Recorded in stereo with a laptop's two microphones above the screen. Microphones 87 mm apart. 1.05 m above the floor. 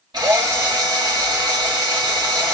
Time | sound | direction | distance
0.1 | a drill | 55° right (ahead or behind) | 2.5 m